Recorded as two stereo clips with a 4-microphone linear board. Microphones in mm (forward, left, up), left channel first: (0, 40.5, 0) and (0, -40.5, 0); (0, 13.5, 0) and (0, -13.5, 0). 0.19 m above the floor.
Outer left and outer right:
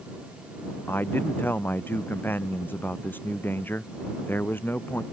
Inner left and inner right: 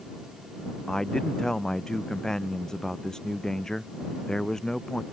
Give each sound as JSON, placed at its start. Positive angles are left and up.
{"t": 0.9, "sound": "a man speaking", "side_deg": 25}